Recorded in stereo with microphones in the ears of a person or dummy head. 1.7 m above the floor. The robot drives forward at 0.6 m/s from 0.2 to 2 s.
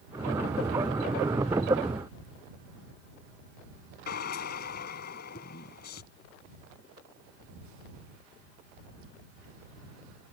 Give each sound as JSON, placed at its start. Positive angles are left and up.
{"t": 4.1, "sound": "a drill", "side_deg": 50}